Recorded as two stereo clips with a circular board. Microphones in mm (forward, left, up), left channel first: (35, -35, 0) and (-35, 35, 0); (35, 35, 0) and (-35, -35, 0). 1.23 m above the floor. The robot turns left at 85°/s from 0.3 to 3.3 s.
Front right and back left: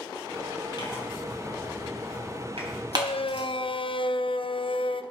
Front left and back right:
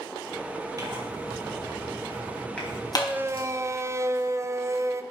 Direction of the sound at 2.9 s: 40° right.